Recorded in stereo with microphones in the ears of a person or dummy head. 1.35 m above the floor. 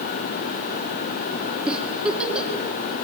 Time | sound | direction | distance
1.7 | a giggle | 10° right (ahead or behind) | 2 m